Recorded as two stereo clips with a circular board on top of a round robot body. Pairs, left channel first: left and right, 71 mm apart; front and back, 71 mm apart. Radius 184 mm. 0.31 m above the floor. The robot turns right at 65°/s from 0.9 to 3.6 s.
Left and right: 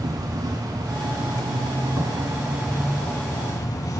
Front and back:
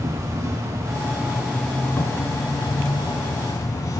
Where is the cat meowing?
I don't hear a cat meowing.